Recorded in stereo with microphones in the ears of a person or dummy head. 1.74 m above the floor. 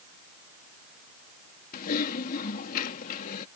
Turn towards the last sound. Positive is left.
turn(degrees=45)  # may be behind; listen again after turning